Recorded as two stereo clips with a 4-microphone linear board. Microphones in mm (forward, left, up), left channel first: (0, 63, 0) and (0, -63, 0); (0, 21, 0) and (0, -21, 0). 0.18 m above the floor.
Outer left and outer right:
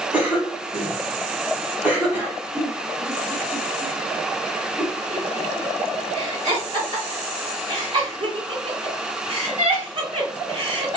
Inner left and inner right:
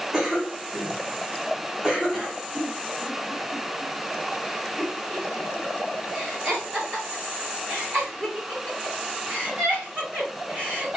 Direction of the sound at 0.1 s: 15° right (ahead or behind).